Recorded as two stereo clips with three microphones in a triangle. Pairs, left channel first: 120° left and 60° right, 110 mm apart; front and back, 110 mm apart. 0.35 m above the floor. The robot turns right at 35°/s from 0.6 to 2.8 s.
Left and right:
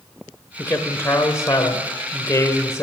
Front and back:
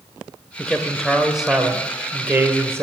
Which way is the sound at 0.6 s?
70° left.